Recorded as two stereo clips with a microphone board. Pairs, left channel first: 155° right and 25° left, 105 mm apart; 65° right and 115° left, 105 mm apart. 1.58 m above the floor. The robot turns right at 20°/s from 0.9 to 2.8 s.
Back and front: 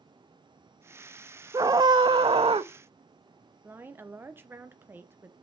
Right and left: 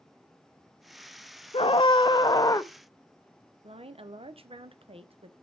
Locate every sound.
1.5 s a scream: 35° right, 0.5 m; by 2.7 s 10° right, 0.5 m
3.6 s a woman speaking: 90° left, 0.7 m